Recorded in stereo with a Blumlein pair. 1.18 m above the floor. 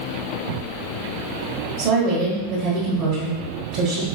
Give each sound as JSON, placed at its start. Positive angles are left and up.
{"t": 1.8, "sound": "a woman speaking", "azimuth_deg": -45, "distance_m": 1.2}